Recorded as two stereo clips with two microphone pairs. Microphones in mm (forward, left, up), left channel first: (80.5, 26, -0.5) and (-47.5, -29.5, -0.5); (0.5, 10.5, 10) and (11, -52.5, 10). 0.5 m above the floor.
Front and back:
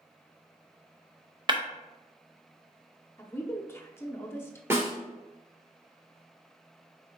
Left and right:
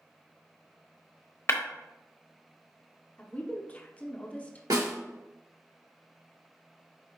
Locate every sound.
1.5 s breaking glass: 150° left, 0.8 m
3.2 s a woman speaking: 65° left, 0.7 m
4.7 s a snare drum: 85° right, 2 m